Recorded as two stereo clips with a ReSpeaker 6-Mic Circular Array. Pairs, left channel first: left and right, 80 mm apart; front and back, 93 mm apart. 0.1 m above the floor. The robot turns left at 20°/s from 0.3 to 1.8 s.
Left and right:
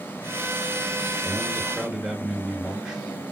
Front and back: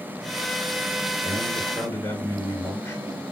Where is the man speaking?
5° right, 1.9 m; by 3.0 s 20° right, 1.9 m.